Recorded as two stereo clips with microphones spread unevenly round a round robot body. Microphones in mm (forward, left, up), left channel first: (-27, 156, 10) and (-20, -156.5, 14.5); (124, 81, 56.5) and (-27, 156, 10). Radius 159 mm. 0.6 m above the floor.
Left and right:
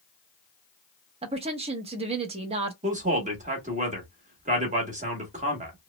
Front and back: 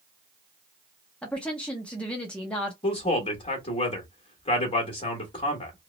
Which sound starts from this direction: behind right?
A woman speaking, at 1.2 s.